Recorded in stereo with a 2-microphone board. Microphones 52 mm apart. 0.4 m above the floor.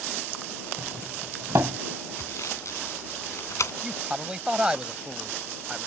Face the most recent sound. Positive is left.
turn(degrees=-20)  # may be behind; listen again after turning